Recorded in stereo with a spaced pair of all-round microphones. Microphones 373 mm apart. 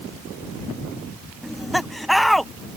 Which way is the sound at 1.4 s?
Centre (ahead or behind).